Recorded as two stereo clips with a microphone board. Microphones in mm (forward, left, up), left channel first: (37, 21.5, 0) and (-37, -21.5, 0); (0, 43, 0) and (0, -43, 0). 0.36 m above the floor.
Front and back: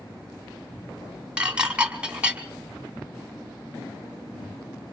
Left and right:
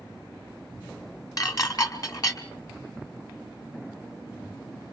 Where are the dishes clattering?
135° left, 1.8 m.